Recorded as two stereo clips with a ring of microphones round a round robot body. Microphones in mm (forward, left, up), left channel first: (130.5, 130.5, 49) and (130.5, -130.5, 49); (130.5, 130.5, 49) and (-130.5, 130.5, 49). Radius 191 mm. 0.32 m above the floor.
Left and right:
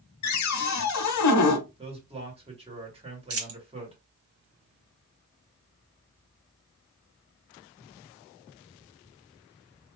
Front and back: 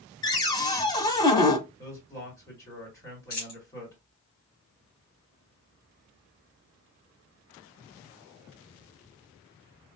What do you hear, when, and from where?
0.2 s a cupboard door: 75° left, 0.9 m
1.8 s a man speaking: 60° right, 1.5 m
3.3 s a dropped coin: 60° right, 1.1 m